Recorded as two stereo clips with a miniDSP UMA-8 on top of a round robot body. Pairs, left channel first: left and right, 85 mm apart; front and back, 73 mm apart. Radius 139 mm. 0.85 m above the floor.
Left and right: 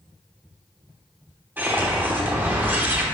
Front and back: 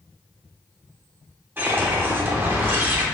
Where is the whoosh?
140° right, 1.1 m.